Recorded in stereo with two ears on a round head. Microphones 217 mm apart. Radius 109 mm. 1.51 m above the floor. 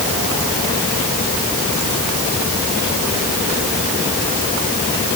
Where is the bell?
No bell in this recording.